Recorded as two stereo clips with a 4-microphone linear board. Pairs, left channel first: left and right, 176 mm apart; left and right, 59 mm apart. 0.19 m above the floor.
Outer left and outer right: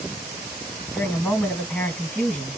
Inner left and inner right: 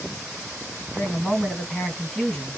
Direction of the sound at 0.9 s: 10° left (ahead or behind).